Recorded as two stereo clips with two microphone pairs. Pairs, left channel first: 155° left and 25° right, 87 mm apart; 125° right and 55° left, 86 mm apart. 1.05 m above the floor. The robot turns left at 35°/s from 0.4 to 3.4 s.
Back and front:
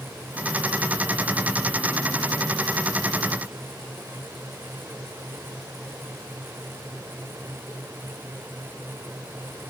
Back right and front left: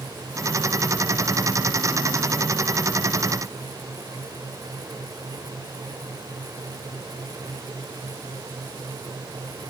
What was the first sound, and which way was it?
Only background noise.